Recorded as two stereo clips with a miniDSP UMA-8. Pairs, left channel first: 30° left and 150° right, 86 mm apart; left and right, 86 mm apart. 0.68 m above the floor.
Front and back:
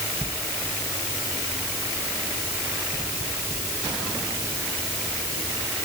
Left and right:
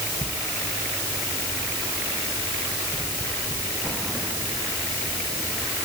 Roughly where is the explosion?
No explosion in this recording.